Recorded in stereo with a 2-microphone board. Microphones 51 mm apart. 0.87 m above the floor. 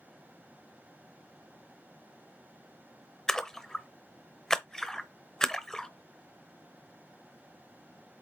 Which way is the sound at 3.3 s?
10° left (ahead or behind).